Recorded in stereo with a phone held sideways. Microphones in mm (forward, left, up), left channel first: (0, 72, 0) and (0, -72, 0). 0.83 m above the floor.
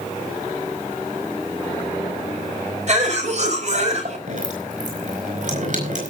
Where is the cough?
55° right (ahead or behind), 5 m.